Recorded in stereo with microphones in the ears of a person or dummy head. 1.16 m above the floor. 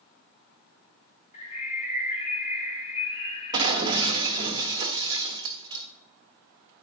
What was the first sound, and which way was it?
A bird, 40° left (ahead or behind).